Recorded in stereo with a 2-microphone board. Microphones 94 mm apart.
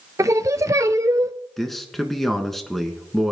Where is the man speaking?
Centre (ahead or behind), 1.4 m.